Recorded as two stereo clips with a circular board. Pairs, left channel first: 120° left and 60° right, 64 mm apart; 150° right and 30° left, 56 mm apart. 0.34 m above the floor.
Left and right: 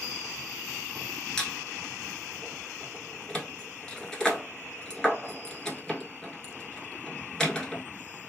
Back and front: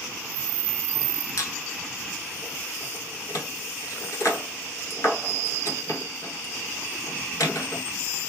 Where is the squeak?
160° right, 0.9 m.